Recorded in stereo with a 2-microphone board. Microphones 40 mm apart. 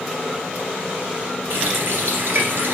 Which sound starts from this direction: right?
A running tap, at 1.5 s.